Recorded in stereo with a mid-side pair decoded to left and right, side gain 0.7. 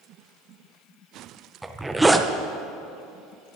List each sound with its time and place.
1.6 s a zipper: 10° right, 0.8 m